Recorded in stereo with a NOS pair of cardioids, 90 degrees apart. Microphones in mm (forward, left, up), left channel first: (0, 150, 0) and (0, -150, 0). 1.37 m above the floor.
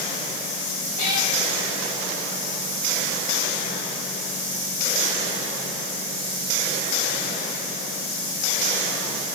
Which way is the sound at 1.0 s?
70° left.